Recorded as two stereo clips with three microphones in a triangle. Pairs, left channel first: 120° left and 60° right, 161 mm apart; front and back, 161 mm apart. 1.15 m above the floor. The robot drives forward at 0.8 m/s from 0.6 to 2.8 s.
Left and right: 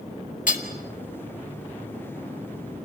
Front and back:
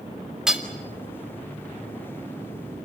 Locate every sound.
0.5 s hammering: 95° left, 2 m